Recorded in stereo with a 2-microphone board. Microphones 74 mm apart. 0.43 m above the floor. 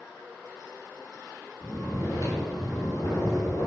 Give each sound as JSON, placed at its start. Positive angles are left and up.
{"t": 1.6, "sound": "snoring", "side_deg": 50, "distance_m": 1.9}